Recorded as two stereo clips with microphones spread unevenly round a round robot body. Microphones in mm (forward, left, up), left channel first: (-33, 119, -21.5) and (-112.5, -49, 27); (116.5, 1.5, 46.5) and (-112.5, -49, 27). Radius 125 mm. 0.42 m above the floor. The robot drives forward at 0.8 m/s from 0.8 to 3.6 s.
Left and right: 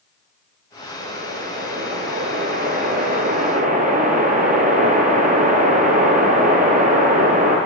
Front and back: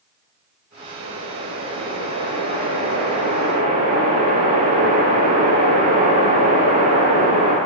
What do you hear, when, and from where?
1.0 s a whoosh: 150° right, 7 m; by 7.6 s 160° right, 9 m